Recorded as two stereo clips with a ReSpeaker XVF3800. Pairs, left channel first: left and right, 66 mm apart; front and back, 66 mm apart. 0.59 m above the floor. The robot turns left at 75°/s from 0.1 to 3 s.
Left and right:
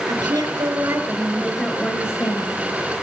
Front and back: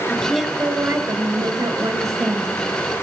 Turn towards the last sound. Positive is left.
turn(degrees=70)